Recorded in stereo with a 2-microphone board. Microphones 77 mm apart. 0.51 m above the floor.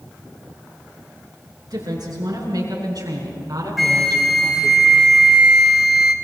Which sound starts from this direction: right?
A woman speaking, at 1.7 s.